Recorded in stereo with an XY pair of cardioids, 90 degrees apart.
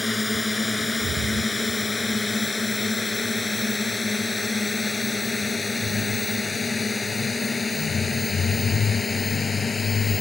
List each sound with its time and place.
0.0 s a drone: 20° left; by 10.2 s 35° left